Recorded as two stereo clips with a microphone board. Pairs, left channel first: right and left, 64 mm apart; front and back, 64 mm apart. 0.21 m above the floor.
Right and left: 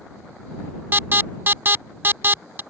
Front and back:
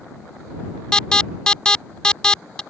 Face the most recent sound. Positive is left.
turn(degrees=65)